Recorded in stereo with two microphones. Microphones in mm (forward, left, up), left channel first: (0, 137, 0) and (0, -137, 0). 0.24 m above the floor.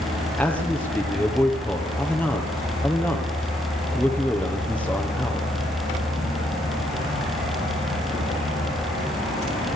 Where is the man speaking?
5° left (ahead or behind), 5.5 m.